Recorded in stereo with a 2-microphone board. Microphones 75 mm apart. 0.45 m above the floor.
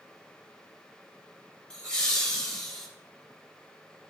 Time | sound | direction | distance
1.7 | laughter | 10° left (ahead or behind) | 2 m